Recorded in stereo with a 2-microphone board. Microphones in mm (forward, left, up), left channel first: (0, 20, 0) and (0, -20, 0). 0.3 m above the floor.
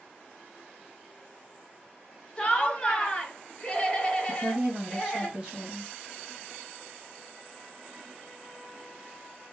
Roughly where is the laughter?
Centre.